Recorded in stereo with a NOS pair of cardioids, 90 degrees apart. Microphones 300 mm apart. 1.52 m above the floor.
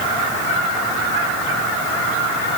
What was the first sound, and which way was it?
Only background noise.